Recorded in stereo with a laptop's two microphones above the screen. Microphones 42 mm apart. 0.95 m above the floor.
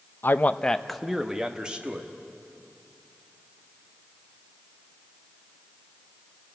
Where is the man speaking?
55° left (ahead or behind), 0.5 m; by 2.1 s 25° right (ahead or behind), 1.6 m.